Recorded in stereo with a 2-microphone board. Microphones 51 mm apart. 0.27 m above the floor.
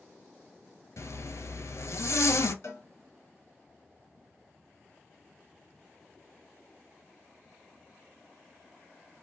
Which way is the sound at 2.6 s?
65° left (ahead or behind).